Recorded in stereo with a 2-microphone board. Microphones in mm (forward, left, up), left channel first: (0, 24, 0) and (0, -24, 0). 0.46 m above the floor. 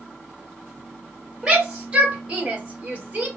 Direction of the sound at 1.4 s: 15° right (ahead or behind).